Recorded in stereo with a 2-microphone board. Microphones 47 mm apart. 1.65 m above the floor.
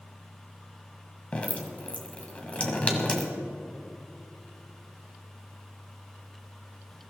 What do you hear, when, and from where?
1.3 s dripping: 25° left (ahead or behind), 1.8 m